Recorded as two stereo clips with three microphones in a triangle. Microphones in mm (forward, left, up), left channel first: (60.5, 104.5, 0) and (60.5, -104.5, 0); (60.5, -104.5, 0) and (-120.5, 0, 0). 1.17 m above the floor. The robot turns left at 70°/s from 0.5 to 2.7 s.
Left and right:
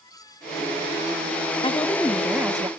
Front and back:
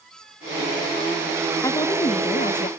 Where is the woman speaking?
40° left, 0.6 m; by 2.7 s 35° right, 0.6 m.